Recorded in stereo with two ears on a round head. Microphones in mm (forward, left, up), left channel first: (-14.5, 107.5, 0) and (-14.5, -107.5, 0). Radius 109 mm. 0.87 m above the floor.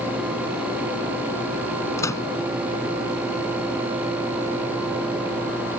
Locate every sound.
2.0 s a microwave: 10° left (ahead or behind)